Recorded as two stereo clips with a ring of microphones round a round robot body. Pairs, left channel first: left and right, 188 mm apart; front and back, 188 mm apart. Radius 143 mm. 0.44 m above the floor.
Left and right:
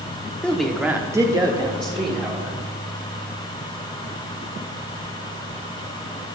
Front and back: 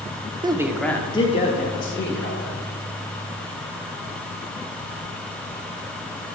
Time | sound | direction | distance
0.4 | a man speaking | 165° left | 1.0 m